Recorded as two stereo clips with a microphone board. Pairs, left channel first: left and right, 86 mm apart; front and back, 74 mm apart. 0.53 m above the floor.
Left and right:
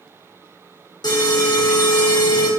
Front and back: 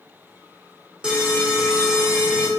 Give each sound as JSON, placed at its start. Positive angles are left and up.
{"t": 1.0, "sound": "an alarm", "azimuth_deg": 105, "distance_m": 0.5}